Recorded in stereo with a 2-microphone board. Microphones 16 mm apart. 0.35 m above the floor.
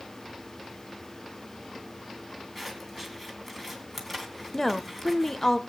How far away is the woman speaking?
About 1.0 m.